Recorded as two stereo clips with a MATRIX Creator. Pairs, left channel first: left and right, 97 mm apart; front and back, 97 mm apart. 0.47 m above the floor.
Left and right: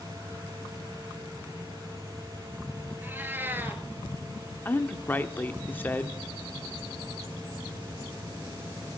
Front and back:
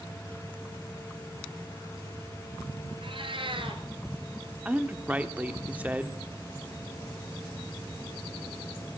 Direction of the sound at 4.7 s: 130° left.